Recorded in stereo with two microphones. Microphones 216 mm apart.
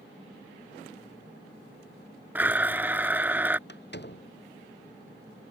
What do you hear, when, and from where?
2.4 s a blender: 10° right (ahead or behind)
3.7 s a door slam: 50° left (ahead or behind)